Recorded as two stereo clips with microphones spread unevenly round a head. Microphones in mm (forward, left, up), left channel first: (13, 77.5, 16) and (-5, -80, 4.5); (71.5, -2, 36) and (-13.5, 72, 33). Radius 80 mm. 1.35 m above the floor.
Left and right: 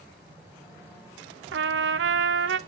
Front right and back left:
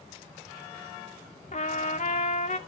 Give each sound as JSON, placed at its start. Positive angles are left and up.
{"t": 1.5, "sound": "a trumpet", "azimuth_deg": -90, "distance_m": 0.8}